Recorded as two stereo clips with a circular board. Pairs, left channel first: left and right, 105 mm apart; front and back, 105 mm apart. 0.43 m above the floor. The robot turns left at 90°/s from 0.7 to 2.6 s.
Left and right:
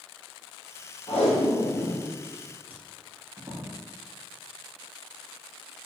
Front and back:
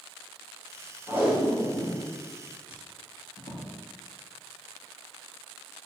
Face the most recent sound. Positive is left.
turn(degrees=-20)